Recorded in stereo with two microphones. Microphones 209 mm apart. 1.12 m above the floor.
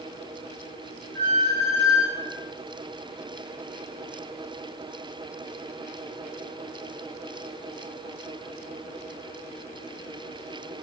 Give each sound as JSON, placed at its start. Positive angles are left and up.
{"t": 1.1, "sound": "a squeak", "side_deg": -60, "distance_m": 3.0}